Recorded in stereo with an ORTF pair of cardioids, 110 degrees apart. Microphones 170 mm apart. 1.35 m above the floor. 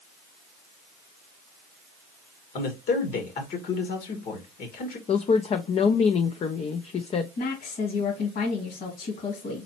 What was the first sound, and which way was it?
A man speaking, 65° left.